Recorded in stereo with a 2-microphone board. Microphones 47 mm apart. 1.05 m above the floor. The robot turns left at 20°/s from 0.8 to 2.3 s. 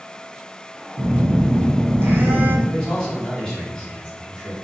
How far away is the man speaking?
About 1.8 m.